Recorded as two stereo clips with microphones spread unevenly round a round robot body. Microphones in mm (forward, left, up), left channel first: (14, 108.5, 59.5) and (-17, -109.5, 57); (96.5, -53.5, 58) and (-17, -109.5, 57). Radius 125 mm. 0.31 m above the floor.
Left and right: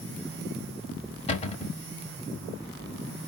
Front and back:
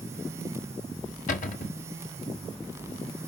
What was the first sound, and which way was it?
A cupboard door, 20° left.